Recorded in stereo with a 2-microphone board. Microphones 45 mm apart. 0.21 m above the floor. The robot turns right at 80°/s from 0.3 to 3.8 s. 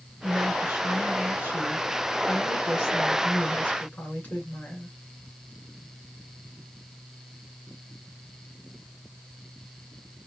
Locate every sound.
0.2 s a woman speaking: 140° right, 3 m; by 5.0 s 140° left, 3 m